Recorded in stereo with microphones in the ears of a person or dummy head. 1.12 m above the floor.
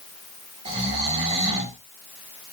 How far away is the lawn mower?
I don't hear a lawn mower.